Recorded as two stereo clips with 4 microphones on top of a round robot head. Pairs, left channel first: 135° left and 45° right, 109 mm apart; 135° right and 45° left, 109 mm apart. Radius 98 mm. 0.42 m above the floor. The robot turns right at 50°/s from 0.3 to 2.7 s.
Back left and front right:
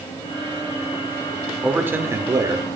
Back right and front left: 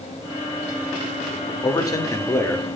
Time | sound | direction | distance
1.6 | a man speaking | 120° right | 0.9 m